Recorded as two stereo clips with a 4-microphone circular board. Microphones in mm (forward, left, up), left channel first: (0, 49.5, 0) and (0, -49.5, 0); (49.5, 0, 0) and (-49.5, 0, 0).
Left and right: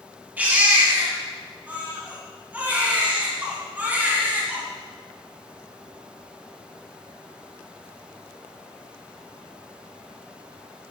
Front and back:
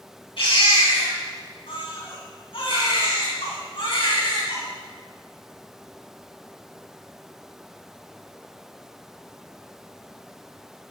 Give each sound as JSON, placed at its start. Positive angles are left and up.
{"t": 0.4, "sound": "a baby crying", "azimuth_deg": -20, "distance_m": 3.5}